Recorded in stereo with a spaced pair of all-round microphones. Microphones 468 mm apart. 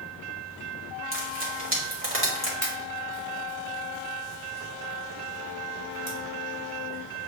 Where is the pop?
30° left (ahead or behind), 1.9 m.